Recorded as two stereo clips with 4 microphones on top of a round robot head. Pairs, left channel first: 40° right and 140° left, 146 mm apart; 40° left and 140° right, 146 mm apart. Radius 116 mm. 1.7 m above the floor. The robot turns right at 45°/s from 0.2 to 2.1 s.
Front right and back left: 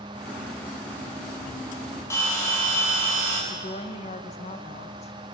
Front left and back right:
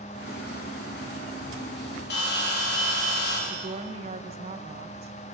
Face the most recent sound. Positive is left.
turn(degrees=-90)